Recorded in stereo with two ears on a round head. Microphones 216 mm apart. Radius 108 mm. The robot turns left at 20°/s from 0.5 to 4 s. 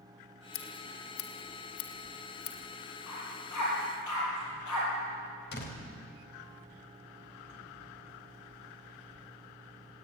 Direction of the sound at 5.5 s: 50° left (ahead or behind).